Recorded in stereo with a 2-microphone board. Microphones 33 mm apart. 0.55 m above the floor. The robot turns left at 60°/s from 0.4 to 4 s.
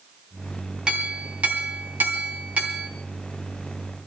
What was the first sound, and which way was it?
A clink, 25° right.